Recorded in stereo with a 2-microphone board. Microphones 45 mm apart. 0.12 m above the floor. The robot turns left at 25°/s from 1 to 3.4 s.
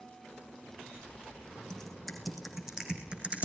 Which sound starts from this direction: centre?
Typing on a keyboard, at 1.7 s.